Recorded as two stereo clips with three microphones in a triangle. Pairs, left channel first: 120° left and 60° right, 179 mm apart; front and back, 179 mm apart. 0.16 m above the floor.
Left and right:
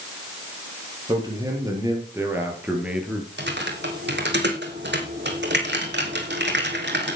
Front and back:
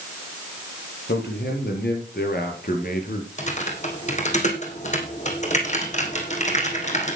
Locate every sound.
1.1 s a man speaking: 5° left, 5 m; by 3.3 s 25° left, 4 m
3.4 s typing on a keyboard: 50° right, 2.5 m